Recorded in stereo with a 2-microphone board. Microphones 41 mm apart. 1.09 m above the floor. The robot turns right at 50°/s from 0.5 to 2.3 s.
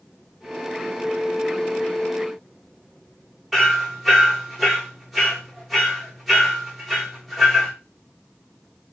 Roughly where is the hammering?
Centre.